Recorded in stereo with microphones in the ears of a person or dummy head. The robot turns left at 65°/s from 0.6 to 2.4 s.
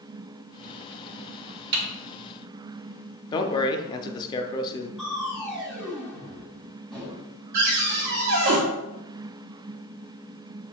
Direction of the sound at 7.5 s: 60° right (ahead or behind).